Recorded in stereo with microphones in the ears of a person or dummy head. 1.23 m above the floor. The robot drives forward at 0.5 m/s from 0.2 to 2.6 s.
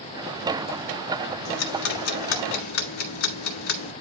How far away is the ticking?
About 1.4 m.